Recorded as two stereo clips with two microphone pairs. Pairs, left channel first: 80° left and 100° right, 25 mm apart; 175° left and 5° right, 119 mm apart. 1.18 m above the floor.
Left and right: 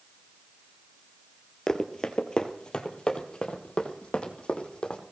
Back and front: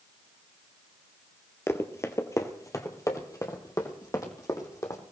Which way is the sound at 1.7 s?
125° left.